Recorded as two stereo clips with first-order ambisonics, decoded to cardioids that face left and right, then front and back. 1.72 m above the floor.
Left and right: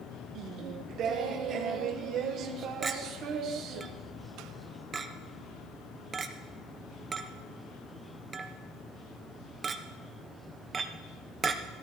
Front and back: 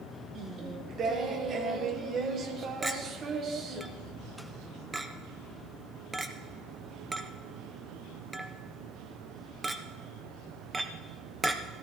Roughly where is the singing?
Behind right.